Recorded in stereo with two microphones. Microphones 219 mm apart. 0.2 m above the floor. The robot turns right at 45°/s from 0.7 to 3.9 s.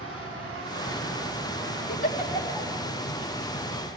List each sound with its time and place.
0.0 s an insect: 110° right, 5.5 m; by 4.0 s 35° left, 5.5 m
1.9 s a giggle: 35° left (ahead or behind), 1.3 m; by 2.7 s 15° left (ahead or behind), 1.3 m